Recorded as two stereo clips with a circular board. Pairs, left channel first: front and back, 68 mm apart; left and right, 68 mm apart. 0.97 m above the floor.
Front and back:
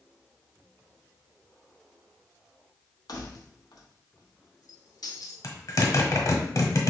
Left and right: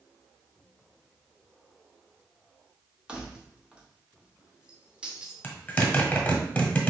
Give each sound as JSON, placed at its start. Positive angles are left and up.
{"t": 3.1, "sound": "keys jangling", "azimuth_deg": -15, "distance_m": 0.8}
{"t": 5.4, "sound": "a zipper", "azimuth_deg": 20, "distance_m": 1.1}